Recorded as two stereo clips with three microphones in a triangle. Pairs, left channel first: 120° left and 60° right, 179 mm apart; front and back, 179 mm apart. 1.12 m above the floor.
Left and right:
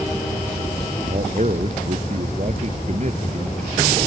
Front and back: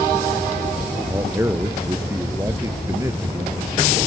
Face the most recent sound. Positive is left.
turn(degrees=-105)